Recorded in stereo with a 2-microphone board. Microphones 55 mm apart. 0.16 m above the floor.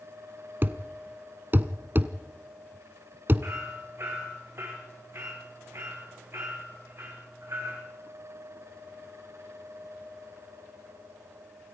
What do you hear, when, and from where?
0.6 s a thud: 40° right (ahead or behind), 0.8 m
3.4 s hammering: 50° right (ahead or behind), 6 m